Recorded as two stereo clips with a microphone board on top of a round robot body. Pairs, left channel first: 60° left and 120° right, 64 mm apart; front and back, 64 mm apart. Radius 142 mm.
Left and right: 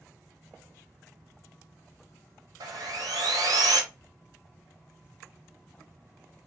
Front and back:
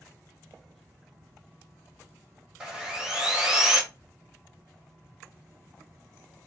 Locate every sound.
2.6 s sawing: 100° right, 1.0 m